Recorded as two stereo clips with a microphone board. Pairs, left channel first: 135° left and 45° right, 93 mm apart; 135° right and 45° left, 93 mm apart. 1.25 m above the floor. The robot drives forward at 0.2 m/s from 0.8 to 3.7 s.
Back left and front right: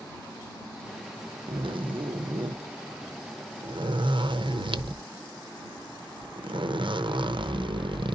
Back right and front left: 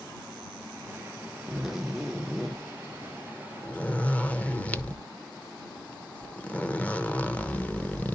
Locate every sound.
1.5 s a zipper: 40° right, 1.0 m; by 8.2 s 60° right, 0.7 m